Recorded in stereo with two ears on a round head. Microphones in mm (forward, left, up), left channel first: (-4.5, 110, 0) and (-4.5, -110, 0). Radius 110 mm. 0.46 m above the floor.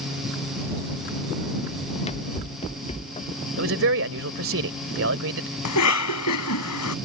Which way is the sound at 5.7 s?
75° left (ahead or behind).